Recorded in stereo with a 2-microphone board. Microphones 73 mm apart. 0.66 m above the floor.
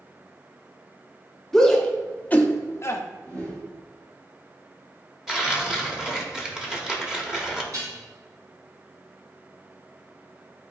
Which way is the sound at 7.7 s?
55° right (ahead or behind).